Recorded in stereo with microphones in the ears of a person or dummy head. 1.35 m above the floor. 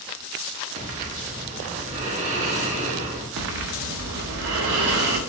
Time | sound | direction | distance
0.8 | breathing | 40° right (ahead or behind) | 1.2 m
3.4 | breathing | 55° right (ahead or behind) | 0.8 m